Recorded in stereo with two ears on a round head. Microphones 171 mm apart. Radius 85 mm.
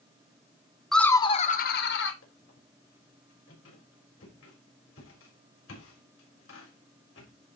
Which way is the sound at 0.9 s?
Centre (ahead or behind).